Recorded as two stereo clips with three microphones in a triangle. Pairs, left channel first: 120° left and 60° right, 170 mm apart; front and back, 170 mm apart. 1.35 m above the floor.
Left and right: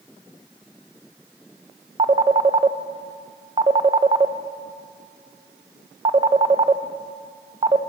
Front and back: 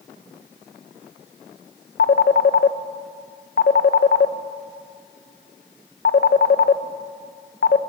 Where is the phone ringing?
5° right, 0.7 m.